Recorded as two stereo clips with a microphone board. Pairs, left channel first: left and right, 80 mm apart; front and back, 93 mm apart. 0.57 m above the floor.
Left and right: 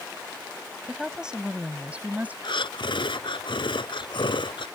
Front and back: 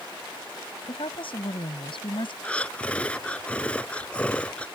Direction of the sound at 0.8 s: 5° right.